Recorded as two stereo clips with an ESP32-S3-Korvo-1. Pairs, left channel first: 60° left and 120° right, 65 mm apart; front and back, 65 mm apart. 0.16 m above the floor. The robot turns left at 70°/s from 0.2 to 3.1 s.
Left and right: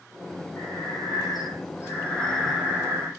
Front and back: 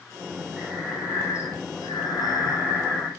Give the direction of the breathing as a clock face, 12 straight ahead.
9 o'clock.